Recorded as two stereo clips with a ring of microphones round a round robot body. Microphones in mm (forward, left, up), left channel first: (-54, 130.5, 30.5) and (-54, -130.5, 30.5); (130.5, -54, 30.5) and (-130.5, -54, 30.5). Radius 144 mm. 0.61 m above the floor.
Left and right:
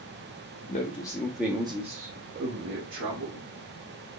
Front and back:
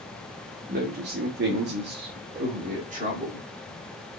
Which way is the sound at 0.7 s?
135° left.